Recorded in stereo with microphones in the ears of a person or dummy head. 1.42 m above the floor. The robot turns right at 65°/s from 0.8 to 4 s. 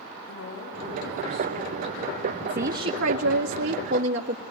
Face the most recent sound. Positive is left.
turn(degrees=-50)